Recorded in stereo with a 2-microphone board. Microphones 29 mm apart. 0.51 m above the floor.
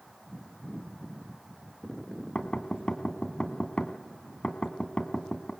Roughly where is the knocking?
Left.